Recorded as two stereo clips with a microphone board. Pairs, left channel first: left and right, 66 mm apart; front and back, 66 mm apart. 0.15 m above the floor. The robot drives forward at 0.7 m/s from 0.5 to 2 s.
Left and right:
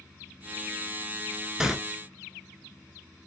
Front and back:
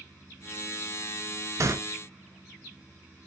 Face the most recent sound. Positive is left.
turn(degrees=-170)